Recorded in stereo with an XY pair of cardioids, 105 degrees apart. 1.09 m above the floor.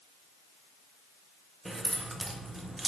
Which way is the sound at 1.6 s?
20° right.